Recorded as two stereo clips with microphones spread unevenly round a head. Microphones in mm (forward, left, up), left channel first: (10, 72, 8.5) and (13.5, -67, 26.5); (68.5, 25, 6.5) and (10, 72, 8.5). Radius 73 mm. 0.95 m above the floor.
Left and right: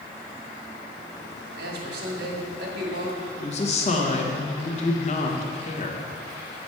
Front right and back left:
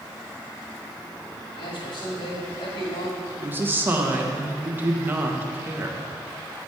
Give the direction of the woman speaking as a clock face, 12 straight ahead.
9 o'clock.